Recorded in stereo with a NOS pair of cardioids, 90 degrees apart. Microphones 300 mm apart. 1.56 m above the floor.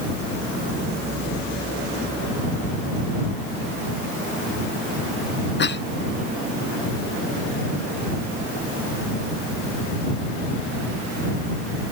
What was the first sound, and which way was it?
A cough, 35° left.